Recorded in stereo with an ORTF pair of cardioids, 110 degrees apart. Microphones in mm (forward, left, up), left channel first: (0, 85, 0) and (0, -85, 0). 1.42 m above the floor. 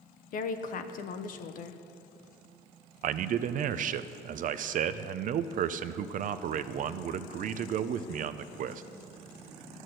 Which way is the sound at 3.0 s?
50° right.